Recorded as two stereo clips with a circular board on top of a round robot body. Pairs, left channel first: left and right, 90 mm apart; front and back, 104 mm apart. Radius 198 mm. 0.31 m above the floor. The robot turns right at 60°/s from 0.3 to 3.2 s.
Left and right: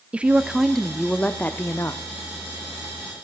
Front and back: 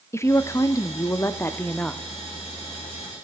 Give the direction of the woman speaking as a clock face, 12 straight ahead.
1 o'clock.